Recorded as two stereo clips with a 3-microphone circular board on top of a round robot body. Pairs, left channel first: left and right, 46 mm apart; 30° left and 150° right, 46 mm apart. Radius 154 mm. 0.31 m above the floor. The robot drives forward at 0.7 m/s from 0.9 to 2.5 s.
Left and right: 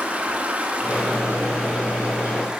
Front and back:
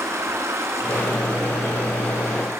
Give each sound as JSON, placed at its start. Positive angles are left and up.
{"t": 0.0, "sound": "running water", "azimuth_deg": -155, "distance_m": 4.0}